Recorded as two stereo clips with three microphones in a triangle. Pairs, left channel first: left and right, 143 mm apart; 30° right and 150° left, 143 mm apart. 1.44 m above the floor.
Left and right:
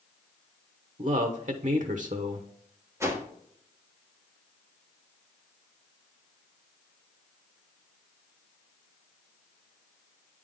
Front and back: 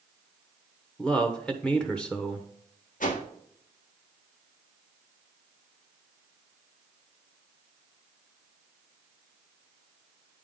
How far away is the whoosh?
About 1.4 m.